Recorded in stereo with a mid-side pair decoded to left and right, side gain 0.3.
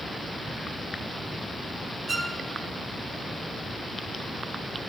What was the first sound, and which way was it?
A violin, 55° right.